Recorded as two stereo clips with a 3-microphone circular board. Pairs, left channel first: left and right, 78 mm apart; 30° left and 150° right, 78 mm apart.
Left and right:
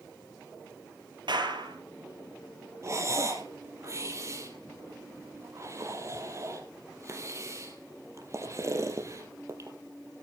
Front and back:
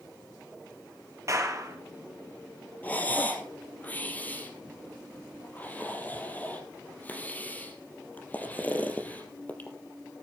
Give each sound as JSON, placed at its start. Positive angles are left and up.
{"t": 1.3, "sound": "a clap", "azimuth_deg": -100, "distance_m": 4.0}
{"t": 2.8, "sound": "breathing", "azimuth_deg": -40, "distance_m": 3.5}